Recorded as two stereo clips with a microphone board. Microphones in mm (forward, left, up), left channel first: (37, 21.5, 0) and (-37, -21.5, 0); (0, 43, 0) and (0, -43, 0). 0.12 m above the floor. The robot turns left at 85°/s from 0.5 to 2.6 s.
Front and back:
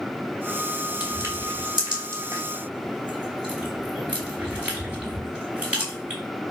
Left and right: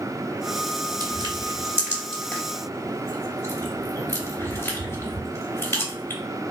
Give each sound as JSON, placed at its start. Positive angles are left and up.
{"t": 1.0, "sound": "crushing", "azimuth_deg": -80, "distance_m": 3.0}